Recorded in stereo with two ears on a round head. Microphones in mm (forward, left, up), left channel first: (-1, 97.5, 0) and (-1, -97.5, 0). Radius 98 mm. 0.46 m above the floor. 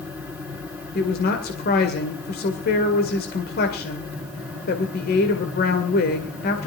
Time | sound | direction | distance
0.9 | a woman speaking | 45° left (ahead or behind) | 2 m